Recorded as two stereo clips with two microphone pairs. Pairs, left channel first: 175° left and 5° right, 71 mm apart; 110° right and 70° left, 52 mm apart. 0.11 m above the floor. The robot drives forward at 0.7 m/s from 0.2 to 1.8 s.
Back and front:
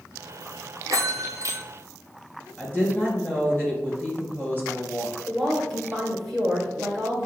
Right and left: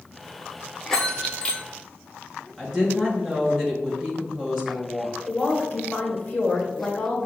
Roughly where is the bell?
Ahead right.